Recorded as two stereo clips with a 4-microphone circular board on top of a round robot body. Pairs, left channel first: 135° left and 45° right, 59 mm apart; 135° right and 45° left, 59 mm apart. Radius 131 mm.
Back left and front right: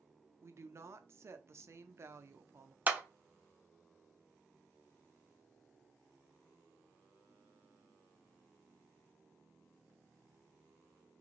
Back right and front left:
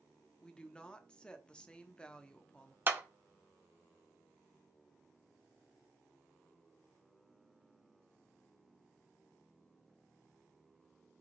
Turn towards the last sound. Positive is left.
turn(degrees=5)